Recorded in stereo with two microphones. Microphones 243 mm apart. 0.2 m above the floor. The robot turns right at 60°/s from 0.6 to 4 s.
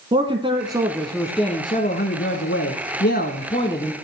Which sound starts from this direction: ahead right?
A man speaking, at 0.1 s.